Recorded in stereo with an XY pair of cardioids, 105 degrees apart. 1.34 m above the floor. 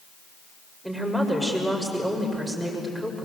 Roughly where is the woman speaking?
Ahead.